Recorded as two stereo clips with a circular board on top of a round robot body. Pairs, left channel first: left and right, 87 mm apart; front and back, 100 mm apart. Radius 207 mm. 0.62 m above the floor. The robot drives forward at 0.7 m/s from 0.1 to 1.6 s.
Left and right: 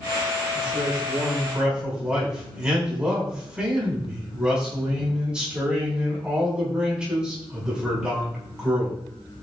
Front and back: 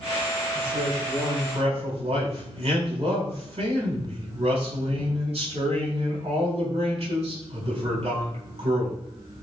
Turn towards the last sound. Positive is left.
turn(degrees=-170)